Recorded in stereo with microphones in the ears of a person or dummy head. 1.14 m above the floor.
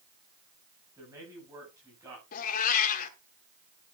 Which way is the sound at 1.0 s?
15° right (ahead or behind).